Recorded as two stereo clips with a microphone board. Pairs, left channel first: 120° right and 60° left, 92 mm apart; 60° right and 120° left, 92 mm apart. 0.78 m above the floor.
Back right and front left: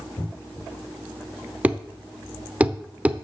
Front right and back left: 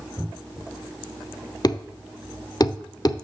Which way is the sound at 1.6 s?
15° right.